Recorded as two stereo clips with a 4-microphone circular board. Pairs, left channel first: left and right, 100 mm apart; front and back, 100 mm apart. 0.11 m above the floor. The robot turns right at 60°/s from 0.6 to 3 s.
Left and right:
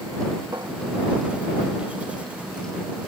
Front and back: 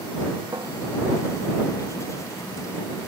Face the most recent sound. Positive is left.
turn(degrees=5)